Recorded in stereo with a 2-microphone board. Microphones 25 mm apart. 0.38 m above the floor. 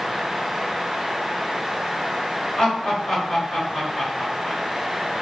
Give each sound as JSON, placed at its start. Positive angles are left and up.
{"t": 2.6, "sound": "laughter", "side_deg": 30, "distance_m": 1.3}